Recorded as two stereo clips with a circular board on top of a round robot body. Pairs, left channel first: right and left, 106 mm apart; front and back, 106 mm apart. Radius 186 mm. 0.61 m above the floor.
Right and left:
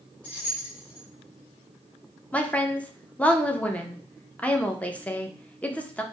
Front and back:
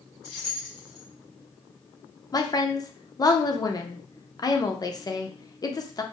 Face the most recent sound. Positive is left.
turn(degrees=-20)